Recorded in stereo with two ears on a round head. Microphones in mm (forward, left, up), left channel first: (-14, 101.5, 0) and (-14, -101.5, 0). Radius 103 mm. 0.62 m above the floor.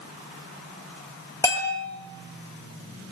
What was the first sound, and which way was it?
A bell, 15° left (ahead or behind).